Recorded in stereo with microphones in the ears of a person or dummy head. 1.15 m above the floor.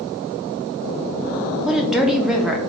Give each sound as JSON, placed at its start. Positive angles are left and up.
{"t": 1.6, "sound": "a woman speaking", "side_deg": 0, "distance_m": 0.5}